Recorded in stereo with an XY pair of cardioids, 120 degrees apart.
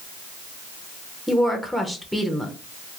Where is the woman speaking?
Straight ahead, 0.6 m.